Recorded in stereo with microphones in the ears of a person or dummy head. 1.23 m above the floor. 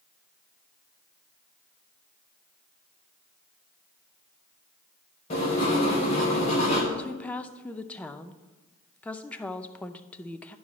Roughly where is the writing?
Left.